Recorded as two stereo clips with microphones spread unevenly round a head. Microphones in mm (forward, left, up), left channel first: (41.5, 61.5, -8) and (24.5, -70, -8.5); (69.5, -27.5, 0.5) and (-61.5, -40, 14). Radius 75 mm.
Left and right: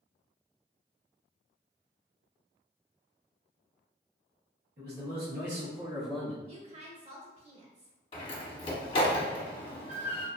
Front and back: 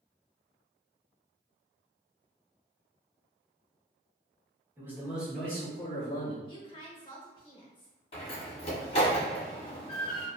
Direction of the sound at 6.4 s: 50° right.